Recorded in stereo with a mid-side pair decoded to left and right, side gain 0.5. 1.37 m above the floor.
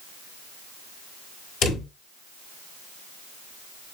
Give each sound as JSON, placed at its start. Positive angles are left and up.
{"t": 1.6, "sound": "a drawer", "azimuth_deg": 65, "distance_m": 4.0}